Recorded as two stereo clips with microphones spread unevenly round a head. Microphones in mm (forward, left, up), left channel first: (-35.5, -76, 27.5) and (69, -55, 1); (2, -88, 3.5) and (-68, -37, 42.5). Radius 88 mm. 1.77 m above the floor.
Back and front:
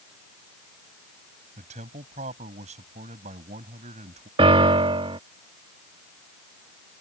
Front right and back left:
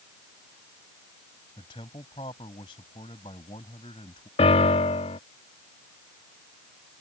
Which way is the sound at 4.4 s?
15° right.